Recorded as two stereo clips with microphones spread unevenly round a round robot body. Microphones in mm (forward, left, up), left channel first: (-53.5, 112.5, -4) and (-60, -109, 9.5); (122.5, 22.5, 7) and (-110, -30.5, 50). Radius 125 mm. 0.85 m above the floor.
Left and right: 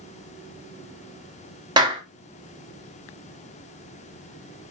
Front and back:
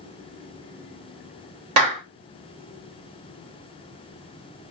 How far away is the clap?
About 1.3 m.